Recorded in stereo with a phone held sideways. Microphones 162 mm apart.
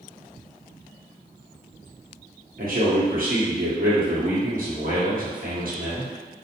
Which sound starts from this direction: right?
A man speaking, at 2.6 s.